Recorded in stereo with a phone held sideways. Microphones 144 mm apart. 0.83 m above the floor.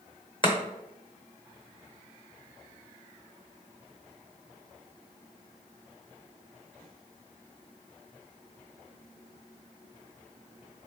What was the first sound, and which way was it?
Chopping, 35° left (ahead or behind).